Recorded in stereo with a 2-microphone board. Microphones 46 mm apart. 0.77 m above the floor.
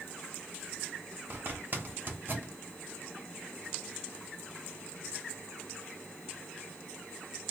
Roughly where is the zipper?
Right.